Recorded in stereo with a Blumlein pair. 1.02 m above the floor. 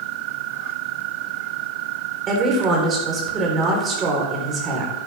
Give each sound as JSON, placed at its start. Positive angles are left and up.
{"t": 2.3, "sound": "a woman speaking", "azimuth_deg": -25, "distance_m": 3.5}